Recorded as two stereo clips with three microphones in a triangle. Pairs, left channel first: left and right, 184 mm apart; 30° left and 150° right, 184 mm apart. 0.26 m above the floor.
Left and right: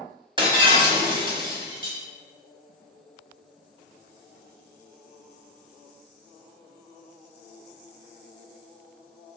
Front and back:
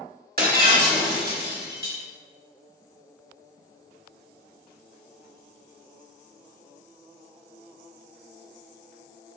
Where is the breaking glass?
145° right, 1.1 m.